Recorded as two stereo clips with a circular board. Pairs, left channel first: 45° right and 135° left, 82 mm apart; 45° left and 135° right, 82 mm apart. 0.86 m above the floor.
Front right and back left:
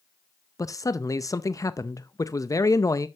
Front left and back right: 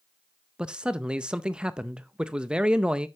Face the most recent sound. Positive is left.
turn(degrees=-60)